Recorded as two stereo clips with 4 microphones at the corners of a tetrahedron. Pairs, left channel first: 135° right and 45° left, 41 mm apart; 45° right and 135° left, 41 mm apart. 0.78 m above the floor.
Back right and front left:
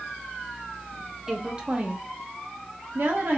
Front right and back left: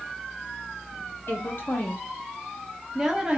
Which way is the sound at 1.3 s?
30° right.